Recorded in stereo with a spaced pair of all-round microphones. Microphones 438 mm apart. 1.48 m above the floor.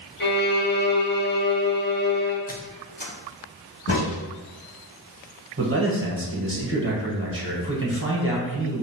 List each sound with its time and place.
0.2 s a violin: 25° left (ahead or behind), 1.0 m
2.5 s a squeak: 20° left (ahead or behind), 0.6 m
3.9 s a crack: 30° left (ahead or behind), 1.9 m
5.6 s a man speaking: 30° right (ahead or behind), 1.1 m